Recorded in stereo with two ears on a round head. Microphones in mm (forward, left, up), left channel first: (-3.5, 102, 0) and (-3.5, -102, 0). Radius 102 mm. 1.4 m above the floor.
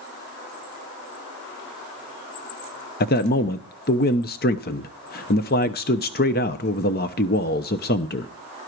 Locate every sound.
3.0 s a man speaking: 40° left (ahead or behind), 0.7 m